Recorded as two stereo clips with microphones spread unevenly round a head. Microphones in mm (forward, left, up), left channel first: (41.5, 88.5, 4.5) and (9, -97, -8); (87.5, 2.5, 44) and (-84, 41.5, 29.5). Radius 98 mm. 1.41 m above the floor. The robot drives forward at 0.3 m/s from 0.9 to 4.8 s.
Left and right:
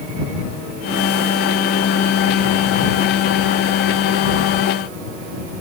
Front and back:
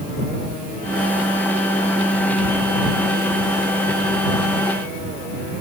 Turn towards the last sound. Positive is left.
No sound to turn to.